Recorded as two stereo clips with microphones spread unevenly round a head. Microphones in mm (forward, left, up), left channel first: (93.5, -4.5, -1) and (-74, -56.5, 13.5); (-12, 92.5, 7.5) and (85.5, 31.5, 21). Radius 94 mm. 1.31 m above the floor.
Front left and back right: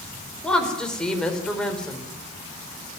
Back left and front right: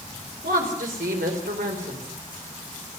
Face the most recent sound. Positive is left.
turn(degrees=-70)